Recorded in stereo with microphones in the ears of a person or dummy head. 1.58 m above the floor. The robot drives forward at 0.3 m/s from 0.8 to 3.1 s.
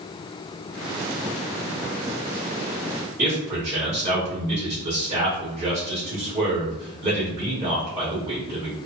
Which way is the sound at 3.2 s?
10° right (ahead or behind).